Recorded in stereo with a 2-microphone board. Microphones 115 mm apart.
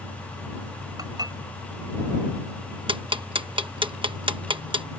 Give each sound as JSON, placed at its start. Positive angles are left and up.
{"t": 1.0, "sound": "dishes clattering", "side_deg": -35}
{"t": 2.9, "sound": "ticking", "side_deg": -45}